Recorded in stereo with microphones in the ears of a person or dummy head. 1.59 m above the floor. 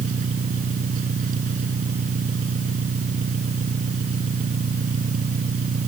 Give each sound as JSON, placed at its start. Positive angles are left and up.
{"t": 0.0, "sound": "an engine running", "side_deg": -45}